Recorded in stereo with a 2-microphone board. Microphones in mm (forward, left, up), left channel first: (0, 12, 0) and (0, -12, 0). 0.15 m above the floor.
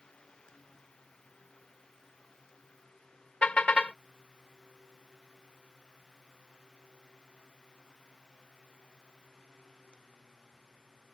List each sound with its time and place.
3.4 s a car horn: 55° left (ahead or behind)